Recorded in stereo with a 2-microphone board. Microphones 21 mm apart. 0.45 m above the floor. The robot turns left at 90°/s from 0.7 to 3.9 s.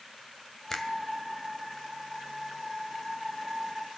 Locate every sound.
0.7 s a finger snap: 15° left (ahead or behind), 1.9 m; by 0.9 s 35° left (ahead or behind), 1.9 m